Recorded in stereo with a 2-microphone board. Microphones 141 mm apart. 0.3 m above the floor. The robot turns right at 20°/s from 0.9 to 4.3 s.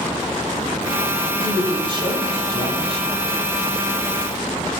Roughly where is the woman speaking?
Behind right.